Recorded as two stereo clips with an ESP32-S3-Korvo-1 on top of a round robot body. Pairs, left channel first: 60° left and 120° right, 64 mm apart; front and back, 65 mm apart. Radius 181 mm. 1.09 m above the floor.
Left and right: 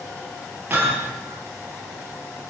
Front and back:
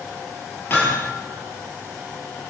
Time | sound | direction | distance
0.7 | hammering | 55° right | 9 m